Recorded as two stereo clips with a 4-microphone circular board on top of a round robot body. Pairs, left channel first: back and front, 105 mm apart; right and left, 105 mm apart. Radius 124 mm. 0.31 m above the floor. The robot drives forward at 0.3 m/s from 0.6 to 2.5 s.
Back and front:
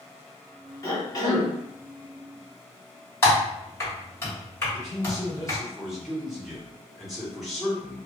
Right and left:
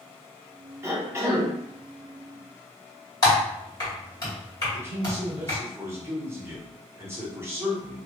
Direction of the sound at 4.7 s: 85° left.